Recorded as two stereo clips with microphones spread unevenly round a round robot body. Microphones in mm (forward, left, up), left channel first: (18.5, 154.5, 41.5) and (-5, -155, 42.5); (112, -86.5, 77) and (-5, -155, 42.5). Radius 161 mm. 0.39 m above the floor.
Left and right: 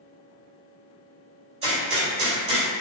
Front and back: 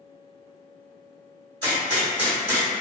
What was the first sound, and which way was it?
A gunshot, 160° right.